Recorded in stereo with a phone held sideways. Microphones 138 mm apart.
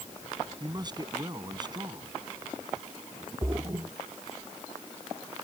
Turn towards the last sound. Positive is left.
turn(degrees=-30)  # may be behind; listen again after turning